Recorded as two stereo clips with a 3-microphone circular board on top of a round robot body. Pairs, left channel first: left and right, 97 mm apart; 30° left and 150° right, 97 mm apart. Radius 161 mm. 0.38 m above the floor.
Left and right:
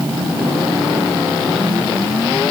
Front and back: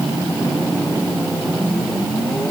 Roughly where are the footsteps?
I don't hear footsteps.